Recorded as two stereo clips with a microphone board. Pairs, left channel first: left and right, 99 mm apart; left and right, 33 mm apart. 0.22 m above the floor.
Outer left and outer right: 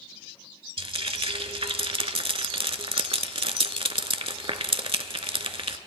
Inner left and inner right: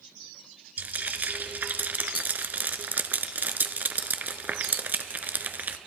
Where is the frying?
70° right (ahead or behind), 0.5 m.